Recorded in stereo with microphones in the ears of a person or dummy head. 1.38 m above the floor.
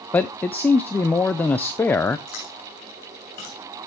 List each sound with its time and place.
0.1 s a man speaking: 15° left (ahead or behind), 0.5 m
2.3 s chewing: 45° left (ahead or behind), 7 m